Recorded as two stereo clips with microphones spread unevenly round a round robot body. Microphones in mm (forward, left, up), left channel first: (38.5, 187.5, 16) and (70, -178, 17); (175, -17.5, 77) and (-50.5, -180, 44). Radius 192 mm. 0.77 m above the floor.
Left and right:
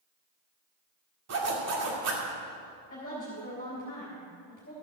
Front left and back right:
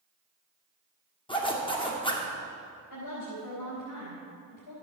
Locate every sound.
1.3 s a zipper: 40° right, 2.5 m
2.9 s a woman speaking: 30° left, 3.5 m